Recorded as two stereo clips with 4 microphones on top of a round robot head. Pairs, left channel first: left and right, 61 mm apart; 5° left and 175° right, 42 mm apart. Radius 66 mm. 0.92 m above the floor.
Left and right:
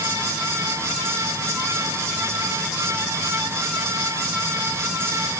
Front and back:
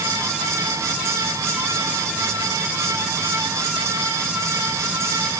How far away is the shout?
No shout in this recording.